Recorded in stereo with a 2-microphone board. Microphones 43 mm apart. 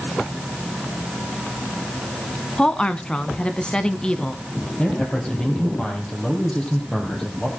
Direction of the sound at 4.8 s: 25° left (ahead or behind).